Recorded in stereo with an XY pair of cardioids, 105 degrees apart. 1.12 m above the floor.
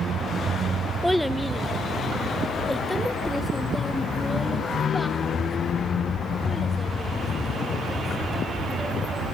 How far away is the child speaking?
About 0.6 m.